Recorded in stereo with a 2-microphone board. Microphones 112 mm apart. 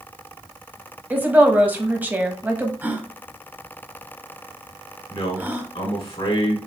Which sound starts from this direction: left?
A man speaking, at 5.1 s.